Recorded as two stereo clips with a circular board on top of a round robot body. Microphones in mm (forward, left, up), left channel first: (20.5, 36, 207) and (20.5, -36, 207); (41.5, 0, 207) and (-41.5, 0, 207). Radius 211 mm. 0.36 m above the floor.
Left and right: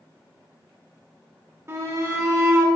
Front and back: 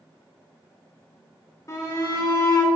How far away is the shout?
About 1.9 m.